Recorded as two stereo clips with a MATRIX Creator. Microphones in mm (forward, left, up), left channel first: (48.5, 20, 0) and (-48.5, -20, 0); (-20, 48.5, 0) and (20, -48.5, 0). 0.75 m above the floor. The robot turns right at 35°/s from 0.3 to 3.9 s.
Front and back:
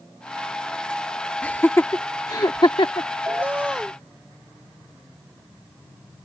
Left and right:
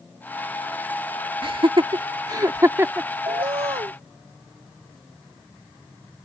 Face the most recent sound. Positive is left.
turn(degrees=-75)